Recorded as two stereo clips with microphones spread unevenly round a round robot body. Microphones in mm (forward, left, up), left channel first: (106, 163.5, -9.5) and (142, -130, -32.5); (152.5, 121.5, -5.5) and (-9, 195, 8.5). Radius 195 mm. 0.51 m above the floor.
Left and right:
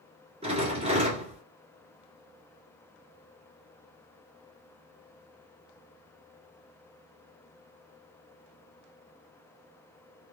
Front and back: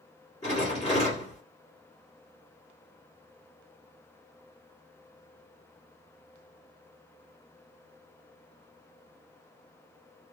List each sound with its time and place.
0.4 s a rattle: 50° right, 1.4 m